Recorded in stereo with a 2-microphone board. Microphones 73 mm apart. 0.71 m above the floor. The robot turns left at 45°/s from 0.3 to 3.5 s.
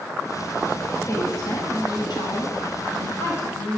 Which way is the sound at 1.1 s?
140° left.